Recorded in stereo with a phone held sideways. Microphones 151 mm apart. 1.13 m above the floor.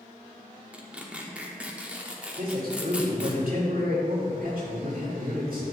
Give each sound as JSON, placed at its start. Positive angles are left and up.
{"t": 0.7, "sound": "tearing paper", "side_deg": -10, "distance_m": 1.1}
{"t": 2.4, "sound": "a man speaking", "side_deg": -70, "distance_m": 3.0}